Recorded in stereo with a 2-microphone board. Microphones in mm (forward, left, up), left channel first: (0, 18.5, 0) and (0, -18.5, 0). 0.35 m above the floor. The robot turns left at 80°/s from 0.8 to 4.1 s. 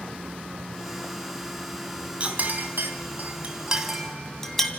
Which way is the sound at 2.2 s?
35° right (ahead or behind).